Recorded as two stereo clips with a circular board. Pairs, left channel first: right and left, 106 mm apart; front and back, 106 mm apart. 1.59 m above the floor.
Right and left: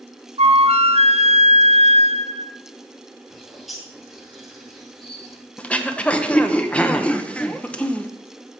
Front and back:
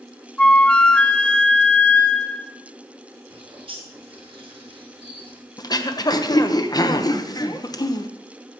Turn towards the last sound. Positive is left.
turn(degrees=-20)